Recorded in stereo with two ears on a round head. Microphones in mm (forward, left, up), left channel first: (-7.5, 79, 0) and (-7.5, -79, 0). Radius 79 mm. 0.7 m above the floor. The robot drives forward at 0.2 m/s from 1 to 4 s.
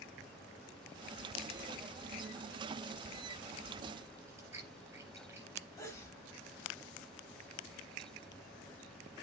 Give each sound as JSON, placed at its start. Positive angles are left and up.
{"t": 4.3, "sound": "chewing", "side_deg": -15, "distance_m": 4.0}
{"t": 5.8, "sound": "a sneeze", "side_deg": 15, "distance_m": 3.5}